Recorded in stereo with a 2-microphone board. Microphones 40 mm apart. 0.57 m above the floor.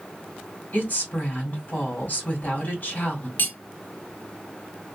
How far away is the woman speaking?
About 1.8 m.